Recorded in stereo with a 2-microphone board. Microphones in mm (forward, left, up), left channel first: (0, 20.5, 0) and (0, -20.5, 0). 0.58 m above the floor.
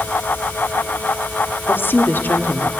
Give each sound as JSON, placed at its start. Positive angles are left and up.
{"t": 1.7, "sound": "a woman speaking", "side_deg": 55, "distance_m": 1.3}